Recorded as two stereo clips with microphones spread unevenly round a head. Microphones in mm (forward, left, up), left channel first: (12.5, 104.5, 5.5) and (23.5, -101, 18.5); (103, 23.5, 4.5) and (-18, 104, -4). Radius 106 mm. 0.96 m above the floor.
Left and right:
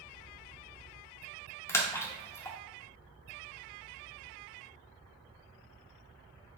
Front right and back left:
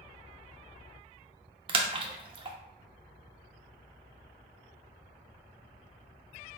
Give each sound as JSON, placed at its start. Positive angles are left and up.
{"t": 1.7, "sound": "a splash", "azimuth_deg": 170, "distance_m": 0.5}